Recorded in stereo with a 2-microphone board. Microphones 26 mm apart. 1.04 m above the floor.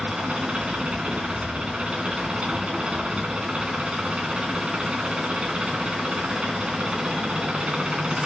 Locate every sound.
0.0 s an engine running: 45° right (ahead or behind), 2.5 m